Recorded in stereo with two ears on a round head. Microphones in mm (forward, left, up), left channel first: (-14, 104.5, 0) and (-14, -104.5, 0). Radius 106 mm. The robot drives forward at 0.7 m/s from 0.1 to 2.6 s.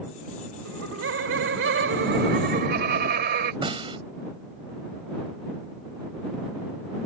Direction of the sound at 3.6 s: 25° right (ahead or behind).